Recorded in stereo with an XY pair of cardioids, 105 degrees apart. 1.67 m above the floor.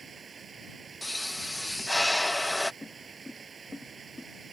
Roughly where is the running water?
Ahead right.